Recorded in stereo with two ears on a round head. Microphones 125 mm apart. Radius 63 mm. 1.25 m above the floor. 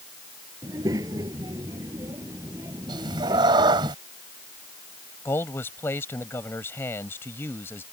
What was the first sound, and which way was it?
A child speaking, 25° right (ahead or behind).